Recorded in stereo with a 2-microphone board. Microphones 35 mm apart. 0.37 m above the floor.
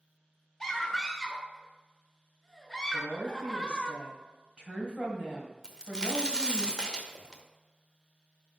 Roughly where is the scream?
Centre.